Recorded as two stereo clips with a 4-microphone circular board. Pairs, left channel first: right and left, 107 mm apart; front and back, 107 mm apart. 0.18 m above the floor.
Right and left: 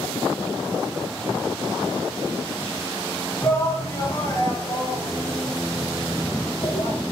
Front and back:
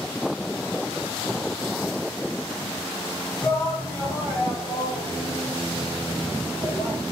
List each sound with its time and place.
3.4 s a shout: 45° right, 1.8 m